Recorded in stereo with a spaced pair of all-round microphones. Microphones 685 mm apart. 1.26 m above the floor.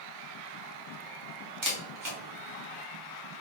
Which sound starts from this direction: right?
A camera shutter, at 1.6 s.